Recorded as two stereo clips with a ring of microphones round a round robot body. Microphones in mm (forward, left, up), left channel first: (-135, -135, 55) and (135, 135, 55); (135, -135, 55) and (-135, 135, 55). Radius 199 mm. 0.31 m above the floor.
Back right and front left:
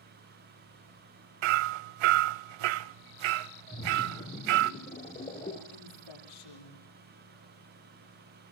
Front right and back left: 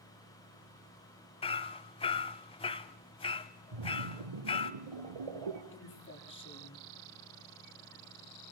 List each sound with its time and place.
1.4 s hammering: 30° left, 0.7 m
3.7 s a splash: 150° left, 3.5 m
5.7 s a woman speaking: 105° right, 9.5 m